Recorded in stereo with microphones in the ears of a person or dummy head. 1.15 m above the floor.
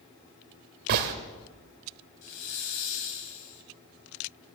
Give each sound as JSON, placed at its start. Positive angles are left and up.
{"t": 0.9, "sound": "a gunshot", "side_deg": -55, "distance_m": 1.3}
{"t": 2.2, "sound": "a hiss", "side_deg": 65, "distance_m": 1.9}